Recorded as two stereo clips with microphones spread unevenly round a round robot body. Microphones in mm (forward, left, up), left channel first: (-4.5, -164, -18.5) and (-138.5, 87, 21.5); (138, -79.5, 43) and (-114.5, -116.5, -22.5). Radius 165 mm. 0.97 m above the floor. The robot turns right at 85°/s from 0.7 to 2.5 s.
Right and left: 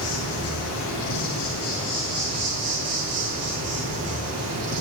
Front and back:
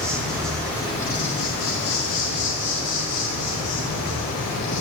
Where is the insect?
85° right, 4 m; by 4.8 s 70° left, 4 m.